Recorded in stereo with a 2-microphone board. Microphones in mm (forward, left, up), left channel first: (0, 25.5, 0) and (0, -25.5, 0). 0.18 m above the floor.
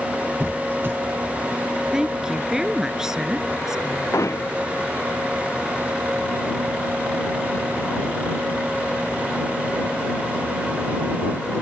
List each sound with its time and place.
0.4 s a squeak: 45° right (ahead or behind)
1.9 s a woman speaking: 10° right (ahead or behind)
4.1 s hammering: 90° left